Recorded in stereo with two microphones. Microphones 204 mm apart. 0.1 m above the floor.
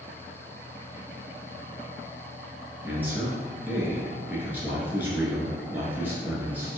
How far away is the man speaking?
About 1.1 m.